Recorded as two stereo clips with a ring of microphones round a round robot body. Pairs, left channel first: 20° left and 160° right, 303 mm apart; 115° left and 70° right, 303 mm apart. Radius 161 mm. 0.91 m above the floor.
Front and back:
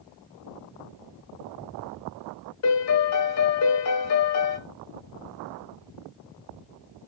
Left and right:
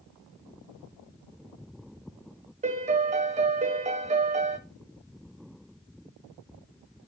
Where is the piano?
5° right, 0.9 m.